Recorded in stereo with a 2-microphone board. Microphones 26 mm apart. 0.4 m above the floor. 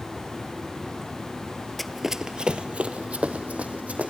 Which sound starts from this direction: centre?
Running footsteps, at 1.8 s.